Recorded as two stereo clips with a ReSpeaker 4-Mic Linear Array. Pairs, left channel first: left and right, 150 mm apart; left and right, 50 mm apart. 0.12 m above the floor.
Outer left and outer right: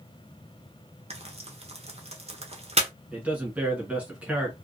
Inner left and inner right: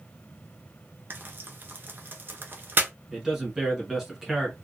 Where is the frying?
45° right (ahead or behind), 0.7 m.